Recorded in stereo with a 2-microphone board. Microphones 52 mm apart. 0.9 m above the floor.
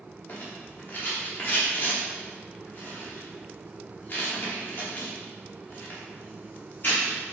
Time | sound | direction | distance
0.3 | a rattle | 40° left (ahead or behind) | 2.5 m